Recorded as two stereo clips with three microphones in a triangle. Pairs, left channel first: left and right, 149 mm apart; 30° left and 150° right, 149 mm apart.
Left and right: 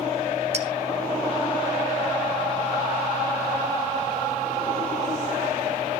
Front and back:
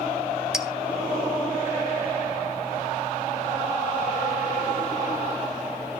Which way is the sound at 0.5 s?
65° right.